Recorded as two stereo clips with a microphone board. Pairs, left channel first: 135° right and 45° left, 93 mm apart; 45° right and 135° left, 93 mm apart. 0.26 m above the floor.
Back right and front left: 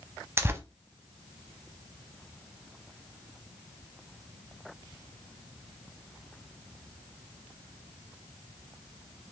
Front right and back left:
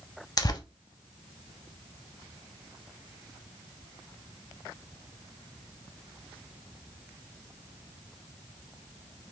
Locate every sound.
0.4 s tearing paper: 10° right, 0.6 m